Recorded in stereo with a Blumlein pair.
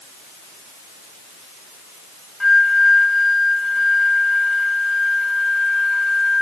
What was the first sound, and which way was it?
A flute, 5° left.